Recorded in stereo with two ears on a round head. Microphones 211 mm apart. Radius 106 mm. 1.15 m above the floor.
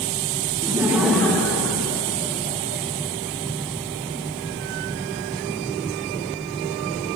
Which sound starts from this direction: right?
Laughter, at 0.6 s.